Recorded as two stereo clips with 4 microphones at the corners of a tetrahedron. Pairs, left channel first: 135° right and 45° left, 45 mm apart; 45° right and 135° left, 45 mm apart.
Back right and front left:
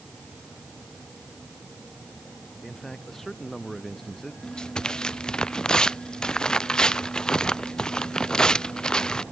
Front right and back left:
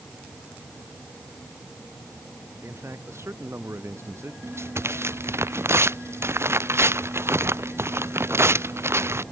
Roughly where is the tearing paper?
Behind left.